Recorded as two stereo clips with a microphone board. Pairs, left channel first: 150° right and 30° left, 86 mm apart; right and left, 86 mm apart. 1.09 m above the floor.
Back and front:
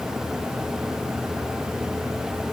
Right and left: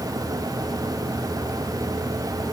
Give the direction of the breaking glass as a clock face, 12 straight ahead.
I don't hear breaking glass.